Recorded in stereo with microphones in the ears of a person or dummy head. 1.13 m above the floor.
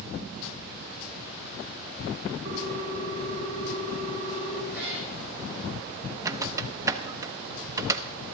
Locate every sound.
2.5 s a ringtone: 50° right (ahead or behind), 2 m
4.7 s a cat meowing: 10° right (ahead or behind), 4.5 m
6.2 s a squeak: 15° right (ahead or behind), 0.8 m